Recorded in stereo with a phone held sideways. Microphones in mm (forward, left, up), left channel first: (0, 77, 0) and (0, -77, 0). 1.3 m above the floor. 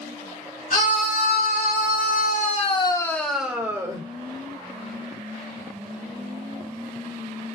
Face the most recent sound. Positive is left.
turn(degrees=-20)  # may be behind; listen again after turning